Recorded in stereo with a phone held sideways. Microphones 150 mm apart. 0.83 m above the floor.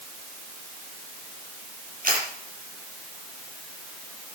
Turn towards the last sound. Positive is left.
turn(degrees=-65)  # may be behind; listen again after turning